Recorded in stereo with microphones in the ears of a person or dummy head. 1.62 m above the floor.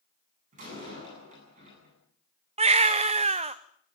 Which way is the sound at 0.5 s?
40° right (ahead or behind).